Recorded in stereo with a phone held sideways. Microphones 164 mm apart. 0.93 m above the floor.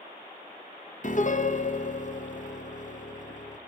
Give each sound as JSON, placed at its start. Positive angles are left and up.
{"t": 1.0, "sound": "a piano", "side_deg": 50, "distance_m": 0.5}